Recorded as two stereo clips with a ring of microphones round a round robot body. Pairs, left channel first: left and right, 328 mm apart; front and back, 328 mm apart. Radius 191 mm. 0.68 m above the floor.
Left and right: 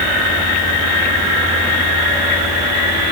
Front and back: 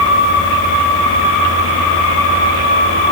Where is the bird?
No bird in this recording.